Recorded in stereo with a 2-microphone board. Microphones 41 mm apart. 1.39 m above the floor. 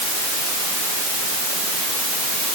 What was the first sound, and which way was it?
Only background noise.